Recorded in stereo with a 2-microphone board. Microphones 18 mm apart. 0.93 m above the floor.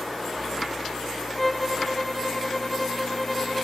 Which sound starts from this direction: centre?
A violin, at 1.4 s.